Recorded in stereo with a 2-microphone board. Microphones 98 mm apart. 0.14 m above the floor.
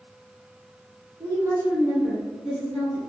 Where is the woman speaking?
35° right (ahead or behind), 1.5 m; by 3.0 s 20° left (ahead or behind), 1.3 m.